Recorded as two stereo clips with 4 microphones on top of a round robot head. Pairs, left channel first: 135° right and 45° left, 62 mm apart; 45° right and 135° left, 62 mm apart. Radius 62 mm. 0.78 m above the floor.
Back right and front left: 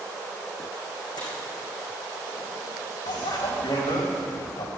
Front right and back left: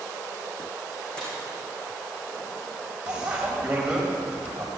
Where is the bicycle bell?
150° right, 3.5 m.